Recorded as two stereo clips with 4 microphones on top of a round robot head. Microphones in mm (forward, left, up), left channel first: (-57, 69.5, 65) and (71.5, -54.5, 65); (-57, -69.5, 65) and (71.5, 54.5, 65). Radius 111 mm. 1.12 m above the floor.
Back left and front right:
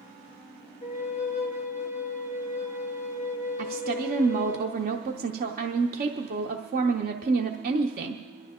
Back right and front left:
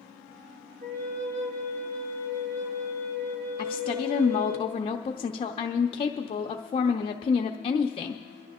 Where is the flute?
85° left, 2 m.